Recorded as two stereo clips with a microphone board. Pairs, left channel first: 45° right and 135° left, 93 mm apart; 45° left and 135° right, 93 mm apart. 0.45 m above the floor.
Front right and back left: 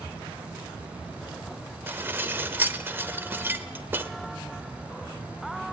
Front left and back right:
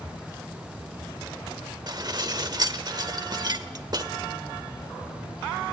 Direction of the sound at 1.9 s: 160° right.